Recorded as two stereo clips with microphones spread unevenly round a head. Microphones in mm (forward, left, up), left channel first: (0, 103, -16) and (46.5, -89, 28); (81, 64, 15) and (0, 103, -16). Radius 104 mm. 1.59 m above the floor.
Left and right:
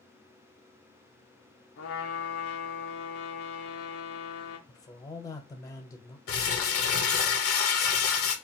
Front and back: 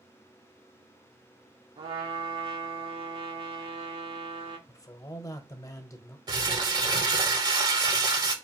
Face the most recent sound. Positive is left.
turn(degrees=105)